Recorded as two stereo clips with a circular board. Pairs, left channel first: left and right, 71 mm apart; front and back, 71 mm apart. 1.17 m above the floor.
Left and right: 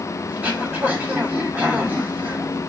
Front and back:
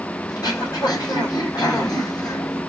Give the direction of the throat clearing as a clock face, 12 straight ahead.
1 o'clock.